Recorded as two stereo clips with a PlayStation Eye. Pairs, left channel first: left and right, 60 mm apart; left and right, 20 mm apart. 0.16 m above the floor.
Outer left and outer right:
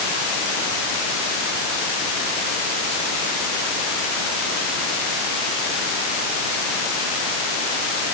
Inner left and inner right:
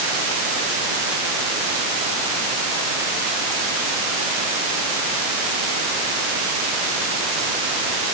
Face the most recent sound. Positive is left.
No sound to turn to.